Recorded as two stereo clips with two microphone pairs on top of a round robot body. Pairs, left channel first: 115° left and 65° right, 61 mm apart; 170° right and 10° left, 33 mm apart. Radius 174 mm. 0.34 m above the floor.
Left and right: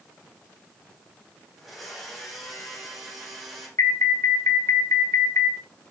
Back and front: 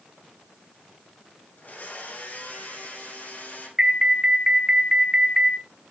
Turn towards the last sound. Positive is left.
turn(degrees=90)